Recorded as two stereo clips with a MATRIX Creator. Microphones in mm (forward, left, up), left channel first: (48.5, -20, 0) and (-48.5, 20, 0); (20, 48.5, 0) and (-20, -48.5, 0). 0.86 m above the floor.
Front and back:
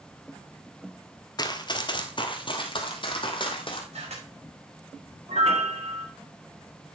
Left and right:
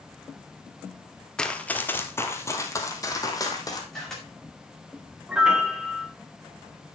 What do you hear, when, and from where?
1.4 s running footsteps: 10° right, 1.0 m; by 3.8 s 15° left, 2.5 m
3.9 s a camera shutter: 155° left, 5.5 m
5.3 s a piano: 165° left, 1.9 m